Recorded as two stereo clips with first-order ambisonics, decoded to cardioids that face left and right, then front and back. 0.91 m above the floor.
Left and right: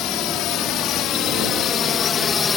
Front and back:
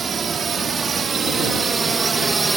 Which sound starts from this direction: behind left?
A drone, at 0.0 s.